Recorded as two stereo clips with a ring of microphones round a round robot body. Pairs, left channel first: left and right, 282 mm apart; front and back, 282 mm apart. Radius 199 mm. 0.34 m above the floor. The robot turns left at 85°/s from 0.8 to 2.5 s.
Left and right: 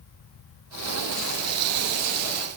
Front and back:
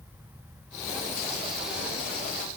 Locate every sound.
Only background noise.